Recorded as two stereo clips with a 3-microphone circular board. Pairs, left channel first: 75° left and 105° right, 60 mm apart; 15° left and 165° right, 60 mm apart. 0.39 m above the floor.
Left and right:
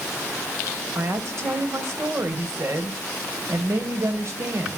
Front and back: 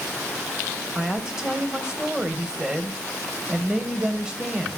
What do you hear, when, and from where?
0.9 s a woman speaking: 90° right, 2 m